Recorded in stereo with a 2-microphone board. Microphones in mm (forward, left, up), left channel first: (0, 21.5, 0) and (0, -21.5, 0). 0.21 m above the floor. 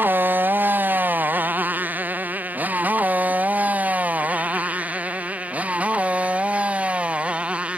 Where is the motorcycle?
45° right (ahead or behind); by 7.8 s 25° right (ahead or behind).